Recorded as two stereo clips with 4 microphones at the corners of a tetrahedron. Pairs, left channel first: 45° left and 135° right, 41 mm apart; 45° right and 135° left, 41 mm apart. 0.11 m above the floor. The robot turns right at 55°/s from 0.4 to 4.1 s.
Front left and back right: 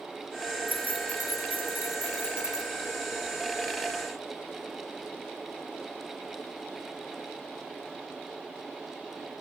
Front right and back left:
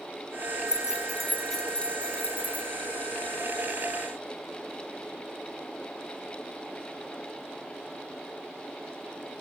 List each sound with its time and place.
0.7 s keys jangling: 165° right, 1.0 m; by 2.7 s 55° right, 1.0 m